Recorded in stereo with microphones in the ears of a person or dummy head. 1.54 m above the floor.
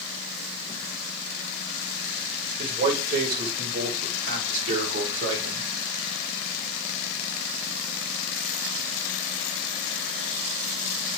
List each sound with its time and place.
2.6 s a man speaking: 50° right (ahead or behind), 5 m; by 5.7 s 70° right (ahead or behind), 5 m